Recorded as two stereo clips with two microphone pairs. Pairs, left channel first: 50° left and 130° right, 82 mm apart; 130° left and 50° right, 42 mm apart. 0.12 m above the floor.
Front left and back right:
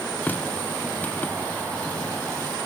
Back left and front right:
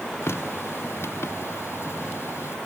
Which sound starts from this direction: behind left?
A running tap, at 0.2 s.